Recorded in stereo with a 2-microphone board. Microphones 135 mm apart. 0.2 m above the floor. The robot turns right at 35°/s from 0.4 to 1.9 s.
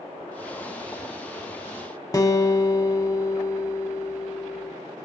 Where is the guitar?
25° left (ahead or behind), 1.0 m.